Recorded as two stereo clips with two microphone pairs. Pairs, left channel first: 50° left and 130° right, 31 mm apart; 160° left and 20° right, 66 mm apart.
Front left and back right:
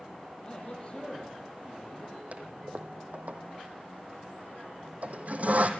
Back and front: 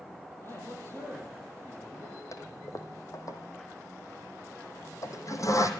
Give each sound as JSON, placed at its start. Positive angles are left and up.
{"t": 0.4, "sound": "a man speaking", "azimuth_deg": 110, "distance_m": 9.5}
{"t": 2.3, "sound": "a toilet flushing", "azimuth_deg": -165, "distance_m": 2.5}